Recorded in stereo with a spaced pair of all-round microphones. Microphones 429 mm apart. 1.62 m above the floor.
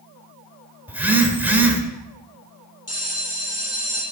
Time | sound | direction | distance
0.9 | a phone buzzing | 5° right (ahead or behind) | 1.8 m
2.9 | a bell | 35° left (ahead or behind) | 9 m